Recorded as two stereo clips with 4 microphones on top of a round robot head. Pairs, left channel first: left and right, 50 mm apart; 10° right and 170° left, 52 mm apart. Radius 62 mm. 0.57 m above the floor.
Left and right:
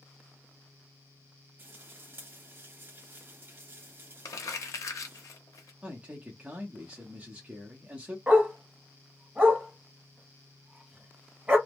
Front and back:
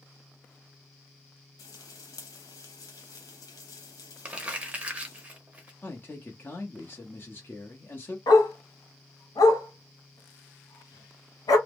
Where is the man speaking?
35° right, 0.9 m.